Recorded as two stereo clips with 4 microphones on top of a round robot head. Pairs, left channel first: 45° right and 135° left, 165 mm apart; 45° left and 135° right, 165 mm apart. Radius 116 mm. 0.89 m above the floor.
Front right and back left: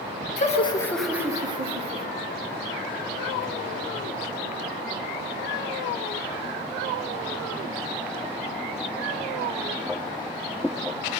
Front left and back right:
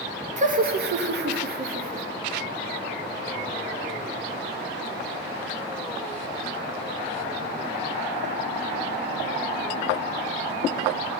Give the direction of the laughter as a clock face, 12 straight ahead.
3 o'clock.